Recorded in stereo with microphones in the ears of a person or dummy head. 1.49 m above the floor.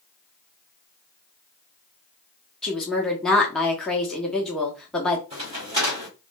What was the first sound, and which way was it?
A woman speaking, 5° left (ahead or behind).